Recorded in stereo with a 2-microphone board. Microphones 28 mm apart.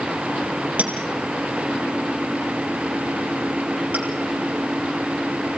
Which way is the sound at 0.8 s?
60° right (ahead or behind).